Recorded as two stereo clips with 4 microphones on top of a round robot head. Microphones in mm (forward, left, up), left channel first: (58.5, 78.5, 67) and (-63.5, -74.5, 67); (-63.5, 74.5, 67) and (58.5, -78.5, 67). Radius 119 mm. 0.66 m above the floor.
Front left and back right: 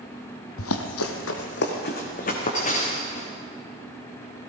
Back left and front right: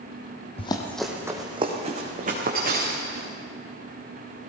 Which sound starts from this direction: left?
Running footsteps, at 0.6 s.